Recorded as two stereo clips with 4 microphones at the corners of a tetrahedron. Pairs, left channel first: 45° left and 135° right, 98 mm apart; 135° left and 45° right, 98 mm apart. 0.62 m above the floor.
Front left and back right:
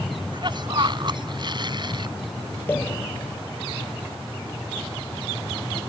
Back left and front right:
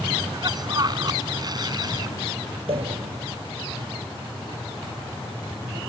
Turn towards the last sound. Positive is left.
turn(degrees=-25)